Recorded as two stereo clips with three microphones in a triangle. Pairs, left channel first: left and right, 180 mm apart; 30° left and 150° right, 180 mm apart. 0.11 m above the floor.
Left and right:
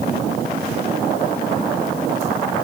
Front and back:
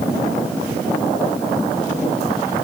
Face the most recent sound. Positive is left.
No sound to turn to.